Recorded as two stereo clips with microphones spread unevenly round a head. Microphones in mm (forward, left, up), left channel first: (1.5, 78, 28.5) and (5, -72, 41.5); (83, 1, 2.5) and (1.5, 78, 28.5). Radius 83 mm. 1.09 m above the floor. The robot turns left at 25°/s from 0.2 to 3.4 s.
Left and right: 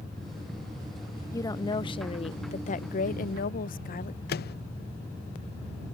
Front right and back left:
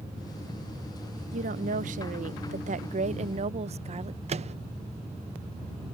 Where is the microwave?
105° left.